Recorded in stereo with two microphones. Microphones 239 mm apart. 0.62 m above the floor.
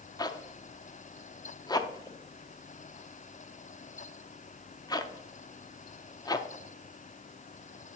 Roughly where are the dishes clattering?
I don't hear dishes clattering.